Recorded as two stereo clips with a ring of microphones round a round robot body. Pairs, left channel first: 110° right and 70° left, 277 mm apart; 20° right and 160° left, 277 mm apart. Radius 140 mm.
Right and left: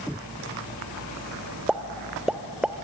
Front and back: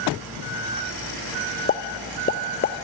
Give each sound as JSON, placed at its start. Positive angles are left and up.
{"t": 1.7, "sound": "a pop", "azimuth_deg": -15, "distance_m": 0.8}